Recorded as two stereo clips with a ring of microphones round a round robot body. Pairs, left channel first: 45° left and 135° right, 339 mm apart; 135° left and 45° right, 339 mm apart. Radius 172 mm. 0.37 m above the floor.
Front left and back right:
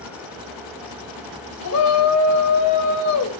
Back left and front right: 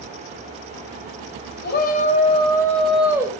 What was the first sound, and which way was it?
A shout, 80° left.